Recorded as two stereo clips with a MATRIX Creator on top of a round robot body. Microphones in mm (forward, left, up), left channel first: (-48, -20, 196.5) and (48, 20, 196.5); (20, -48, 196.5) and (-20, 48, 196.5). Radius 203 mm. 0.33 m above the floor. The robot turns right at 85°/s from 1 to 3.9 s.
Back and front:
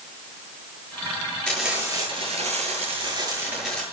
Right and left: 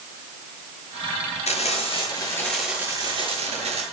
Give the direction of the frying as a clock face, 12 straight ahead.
3 o'clock.